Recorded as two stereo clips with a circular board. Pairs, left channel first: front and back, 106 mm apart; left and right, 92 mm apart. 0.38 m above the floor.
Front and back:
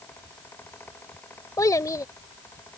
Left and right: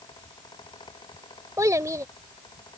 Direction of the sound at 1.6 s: 45° right.